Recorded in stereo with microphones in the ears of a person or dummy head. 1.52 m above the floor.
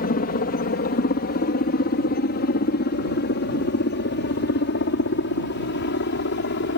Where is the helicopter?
45° left (ahead or behind); by 6.8 s 60° left (ahead or behind).